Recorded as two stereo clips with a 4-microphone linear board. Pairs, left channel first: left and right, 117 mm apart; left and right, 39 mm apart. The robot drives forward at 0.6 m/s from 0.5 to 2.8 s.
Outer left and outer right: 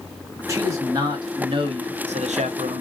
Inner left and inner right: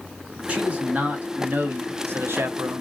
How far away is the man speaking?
About 1.3 m.